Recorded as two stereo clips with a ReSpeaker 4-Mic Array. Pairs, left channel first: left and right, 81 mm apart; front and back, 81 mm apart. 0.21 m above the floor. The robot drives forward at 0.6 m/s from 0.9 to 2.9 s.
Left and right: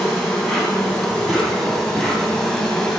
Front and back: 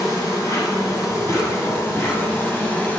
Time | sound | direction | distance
0.0 | an insect | 5° left | 3 m